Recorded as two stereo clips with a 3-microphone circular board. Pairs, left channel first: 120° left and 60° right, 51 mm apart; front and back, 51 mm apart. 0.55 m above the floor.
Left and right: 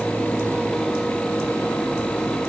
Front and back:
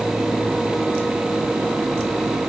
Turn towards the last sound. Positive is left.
No sound to turn to.